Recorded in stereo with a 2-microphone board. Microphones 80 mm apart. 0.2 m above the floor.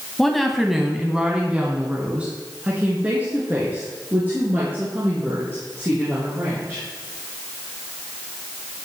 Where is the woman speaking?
5° left (ahead or behind), 1.0 m; by 6.8 s 30° right (ahead or behind), 4 m.